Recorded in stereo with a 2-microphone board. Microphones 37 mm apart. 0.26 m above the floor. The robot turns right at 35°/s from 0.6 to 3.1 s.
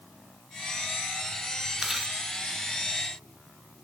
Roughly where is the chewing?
Centre.